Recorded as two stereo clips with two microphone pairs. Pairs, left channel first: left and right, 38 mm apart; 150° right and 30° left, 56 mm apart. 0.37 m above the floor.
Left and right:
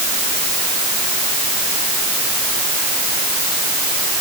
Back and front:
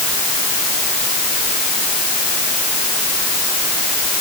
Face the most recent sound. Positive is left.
No sound to turn to.